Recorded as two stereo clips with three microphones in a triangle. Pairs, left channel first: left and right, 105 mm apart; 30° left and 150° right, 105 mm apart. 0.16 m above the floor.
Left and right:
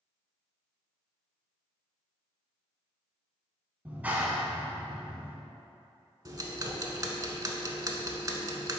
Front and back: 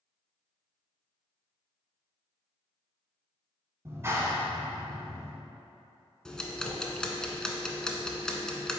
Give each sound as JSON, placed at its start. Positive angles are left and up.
{"t": 3.9, "sound": "a clap", "azimuth_deg": -145, "distance_m": 1.0}
{"t": 6.2, "sound": "ticking", "azimuth_deg": -50, "distance_m": 0.7}